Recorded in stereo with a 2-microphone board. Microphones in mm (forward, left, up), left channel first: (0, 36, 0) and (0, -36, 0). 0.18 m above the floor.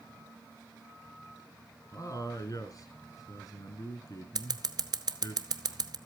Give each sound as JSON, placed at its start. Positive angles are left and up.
{"t": 1.9, "sound": "a man speaking", "side_deg": 50, "distance_m": 2.0}
{"t": 4.3, "sound": "scissors", "side_deg": -65, "distance_m": 0.8}